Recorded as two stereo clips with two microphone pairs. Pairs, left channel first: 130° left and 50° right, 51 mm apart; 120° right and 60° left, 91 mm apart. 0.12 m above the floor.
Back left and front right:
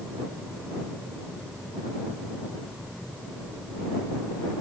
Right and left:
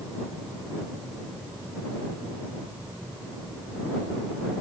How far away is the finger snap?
I don't hear a finger snap.